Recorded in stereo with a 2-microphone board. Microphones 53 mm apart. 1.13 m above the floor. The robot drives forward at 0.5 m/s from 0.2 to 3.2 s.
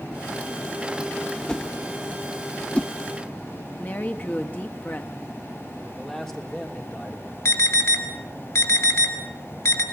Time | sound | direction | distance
1.5 | a whoosh | 15° left (ahead or behind) | 1.0 m
3.8 | a woman speaking | 35° left (ahead or behind) | 1.9 m
5.8 | a man speaking | 10° left (ahead or behind) | 3 m
7.5 | an alarm | 80° left | 3.5 m